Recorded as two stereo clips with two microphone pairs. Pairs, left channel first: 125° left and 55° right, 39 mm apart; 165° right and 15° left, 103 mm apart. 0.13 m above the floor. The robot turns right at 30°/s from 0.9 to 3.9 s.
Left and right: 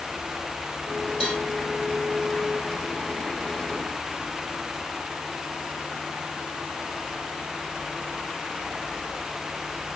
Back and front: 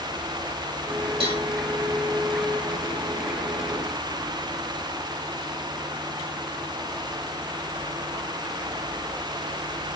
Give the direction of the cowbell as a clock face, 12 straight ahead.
11 o'clock.